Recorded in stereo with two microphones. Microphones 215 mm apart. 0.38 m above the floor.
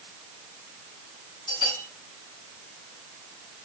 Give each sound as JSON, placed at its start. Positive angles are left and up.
{"t": 1.5, "sound": "a bell", "side_deg": 20, "distance_m": 4.0}